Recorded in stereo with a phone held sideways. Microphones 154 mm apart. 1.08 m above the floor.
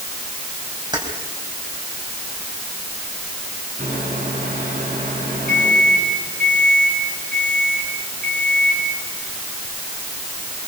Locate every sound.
0.9 s keys jangling: 25° right (ahead or behind), 4 m
3.8 s a microwave: 65° right (ahead or behind), 8.5 m